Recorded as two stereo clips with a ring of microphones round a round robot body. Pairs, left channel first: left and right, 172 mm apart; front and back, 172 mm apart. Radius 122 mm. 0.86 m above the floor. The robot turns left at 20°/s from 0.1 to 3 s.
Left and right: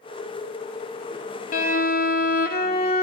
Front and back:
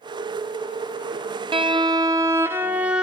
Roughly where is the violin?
Behind left.